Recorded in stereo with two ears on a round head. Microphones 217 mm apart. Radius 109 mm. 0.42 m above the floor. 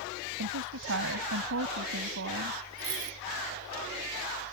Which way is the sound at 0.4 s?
65° right (ahead or behind).